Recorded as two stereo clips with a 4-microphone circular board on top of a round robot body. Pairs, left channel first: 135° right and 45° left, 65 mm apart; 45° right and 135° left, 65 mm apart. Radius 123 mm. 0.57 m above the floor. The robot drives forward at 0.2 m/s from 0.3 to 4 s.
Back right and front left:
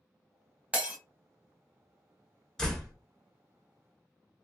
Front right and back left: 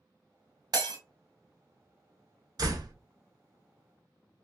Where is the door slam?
140° left, 1.1 m; by 2.9 s 145° left, 1.1 m.